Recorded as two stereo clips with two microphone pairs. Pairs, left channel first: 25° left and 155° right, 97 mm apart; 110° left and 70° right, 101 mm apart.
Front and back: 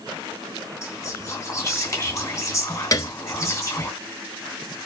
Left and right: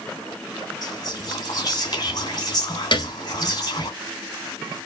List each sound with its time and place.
0.8 s whispering: 75° left, 3 m
2.9 s a piano: 80° left, 1.2 m